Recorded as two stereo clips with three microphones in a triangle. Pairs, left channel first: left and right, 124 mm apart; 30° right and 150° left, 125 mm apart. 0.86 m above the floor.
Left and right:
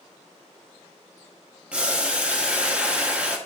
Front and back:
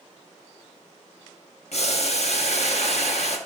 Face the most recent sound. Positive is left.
turn(degrees=-10)